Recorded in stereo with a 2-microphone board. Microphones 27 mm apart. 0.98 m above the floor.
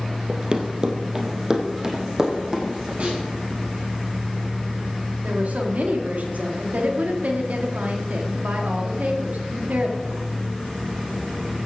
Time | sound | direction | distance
0.3 | running footsteps | 35° right (ahead or behind) | 1.4 m
3.0 | a snare drum | 60° right (ahead or behind) | 6.5 m
5.2 | a woman speaking | 70° right (ahead or behind) | 2 m